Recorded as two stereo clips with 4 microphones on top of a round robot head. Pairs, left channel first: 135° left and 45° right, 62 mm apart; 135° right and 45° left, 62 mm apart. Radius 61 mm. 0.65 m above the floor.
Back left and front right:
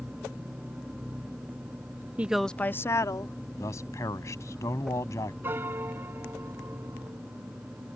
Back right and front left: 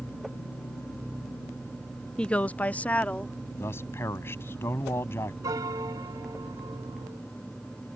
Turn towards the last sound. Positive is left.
turn(degrees=10)